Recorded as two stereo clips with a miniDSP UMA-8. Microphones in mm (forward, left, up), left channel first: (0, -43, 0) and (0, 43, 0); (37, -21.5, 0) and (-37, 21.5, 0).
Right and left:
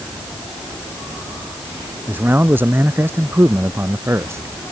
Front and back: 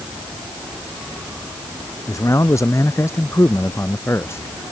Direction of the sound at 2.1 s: 20° left.